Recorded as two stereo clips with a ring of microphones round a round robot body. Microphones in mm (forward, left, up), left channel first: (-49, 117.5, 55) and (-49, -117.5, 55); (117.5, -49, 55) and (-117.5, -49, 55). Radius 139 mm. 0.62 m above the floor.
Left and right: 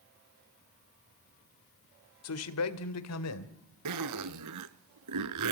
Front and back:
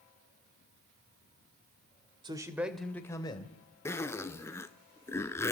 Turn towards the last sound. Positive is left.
turn(degrees=-80)